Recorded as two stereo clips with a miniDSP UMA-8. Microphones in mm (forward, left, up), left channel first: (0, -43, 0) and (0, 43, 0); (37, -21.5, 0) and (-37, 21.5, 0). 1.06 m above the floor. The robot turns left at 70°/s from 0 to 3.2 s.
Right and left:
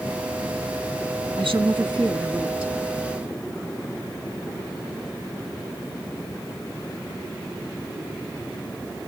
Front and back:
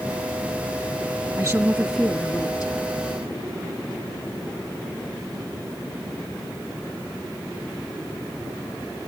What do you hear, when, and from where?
1.4 s a woman speaking: 95° left, 1.7 m; by 2.7 s straight ahead, 1.7 m